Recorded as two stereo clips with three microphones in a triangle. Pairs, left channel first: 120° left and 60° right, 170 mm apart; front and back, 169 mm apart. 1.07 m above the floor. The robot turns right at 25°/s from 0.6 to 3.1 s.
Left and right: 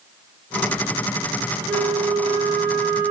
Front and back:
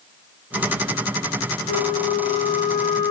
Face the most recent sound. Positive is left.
turn(degrees=70)